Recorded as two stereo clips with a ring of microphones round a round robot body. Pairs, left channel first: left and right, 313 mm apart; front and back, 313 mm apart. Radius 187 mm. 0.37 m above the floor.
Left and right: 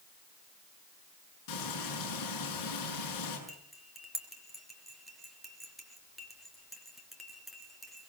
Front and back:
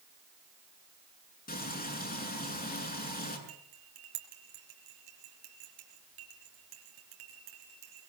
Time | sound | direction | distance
1.5 | frying | 60° left | 7 m
3.5 | cutlery clinking | straight behind | 4 m